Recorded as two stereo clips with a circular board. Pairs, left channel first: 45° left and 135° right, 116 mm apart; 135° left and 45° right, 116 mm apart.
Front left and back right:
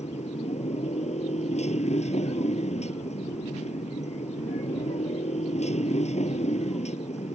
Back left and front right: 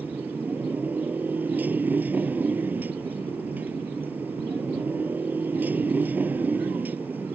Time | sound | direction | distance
0.0 | a motorcycle | 30° left | ?